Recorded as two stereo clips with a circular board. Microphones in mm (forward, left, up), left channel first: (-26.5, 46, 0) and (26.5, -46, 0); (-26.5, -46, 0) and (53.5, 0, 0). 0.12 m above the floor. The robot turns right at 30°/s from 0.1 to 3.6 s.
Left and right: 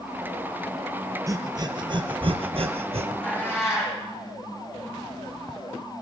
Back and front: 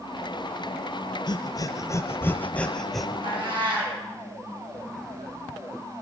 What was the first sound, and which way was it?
Breathing, 115° right.